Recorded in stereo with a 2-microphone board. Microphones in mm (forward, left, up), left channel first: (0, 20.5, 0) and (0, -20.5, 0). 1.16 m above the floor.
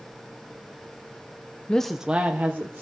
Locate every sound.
1.7 s a woman speaking: 20° left (ahead or behind), 0.6 m; by 2.8 s 55° right (ahead or behind), 1.3 m